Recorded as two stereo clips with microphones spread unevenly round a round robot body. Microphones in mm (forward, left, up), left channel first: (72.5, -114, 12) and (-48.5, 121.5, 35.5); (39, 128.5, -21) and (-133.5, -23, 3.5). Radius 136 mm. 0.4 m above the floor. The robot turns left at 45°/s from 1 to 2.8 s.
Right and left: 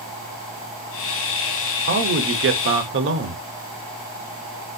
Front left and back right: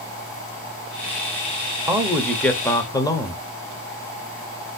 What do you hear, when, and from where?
1.9 s a man speaking: 140° left, 0.9 m; by 3.4 s 100° left, 0.9 m